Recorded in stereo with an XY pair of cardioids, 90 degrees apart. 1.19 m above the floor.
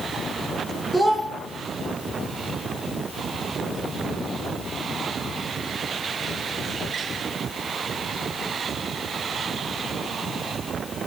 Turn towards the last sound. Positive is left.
turn(degrees=-10)